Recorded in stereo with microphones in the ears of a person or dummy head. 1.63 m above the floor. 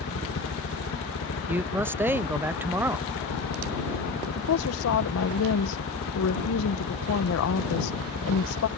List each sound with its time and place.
0.0 s a helicopter: 60° left (ahead or behind)
1.5 s a man speaking: 15° right (ahead or behind)
4.3 s a woman speaking: 75° left (ahead or behind)